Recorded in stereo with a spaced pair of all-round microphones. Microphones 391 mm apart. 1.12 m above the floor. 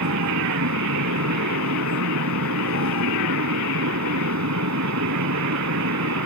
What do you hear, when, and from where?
0.0 s a fan: 45° right (ahead or behind)